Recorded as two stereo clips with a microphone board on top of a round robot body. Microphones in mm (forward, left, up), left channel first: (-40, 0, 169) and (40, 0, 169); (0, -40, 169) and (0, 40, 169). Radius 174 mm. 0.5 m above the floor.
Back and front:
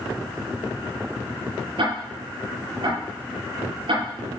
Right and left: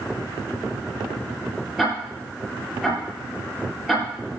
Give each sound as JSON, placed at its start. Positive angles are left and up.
{"t": 1.8, "sound": "ticking", "azimuth_deg": 0, "distance_m": 7.5}